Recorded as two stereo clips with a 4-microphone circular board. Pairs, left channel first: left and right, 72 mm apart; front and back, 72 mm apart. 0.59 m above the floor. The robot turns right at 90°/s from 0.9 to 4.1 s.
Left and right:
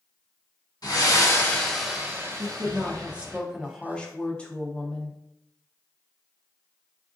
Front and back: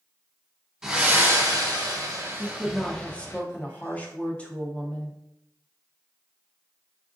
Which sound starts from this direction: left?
Breathing, at 0.8 s.